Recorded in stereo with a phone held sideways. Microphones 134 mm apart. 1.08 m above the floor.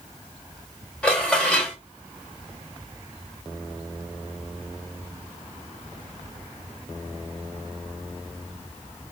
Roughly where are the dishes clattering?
Centre.